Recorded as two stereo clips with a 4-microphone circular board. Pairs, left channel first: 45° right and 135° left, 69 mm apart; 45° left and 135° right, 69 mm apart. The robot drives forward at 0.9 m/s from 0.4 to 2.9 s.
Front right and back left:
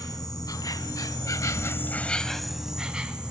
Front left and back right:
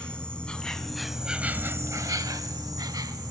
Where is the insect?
30° right, 1.4 m; by 3.3 s 150° right, 1.3 m.